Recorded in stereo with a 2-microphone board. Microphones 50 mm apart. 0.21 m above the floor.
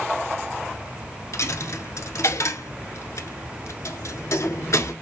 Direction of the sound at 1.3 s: 70° left (ahead or behind).